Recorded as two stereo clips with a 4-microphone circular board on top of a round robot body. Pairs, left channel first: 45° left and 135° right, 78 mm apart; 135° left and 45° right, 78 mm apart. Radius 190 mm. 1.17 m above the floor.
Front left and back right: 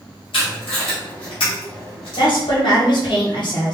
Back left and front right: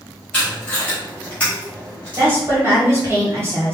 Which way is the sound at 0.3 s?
60° left.